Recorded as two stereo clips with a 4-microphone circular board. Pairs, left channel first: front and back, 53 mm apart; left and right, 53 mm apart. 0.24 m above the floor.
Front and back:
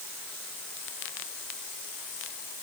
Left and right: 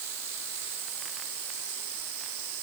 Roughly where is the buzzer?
I don't hear a buzzer.